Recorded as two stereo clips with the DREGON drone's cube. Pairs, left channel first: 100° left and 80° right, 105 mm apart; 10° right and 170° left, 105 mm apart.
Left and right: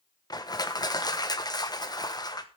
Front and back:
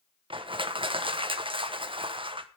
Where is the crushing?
145° left, 1.1 m.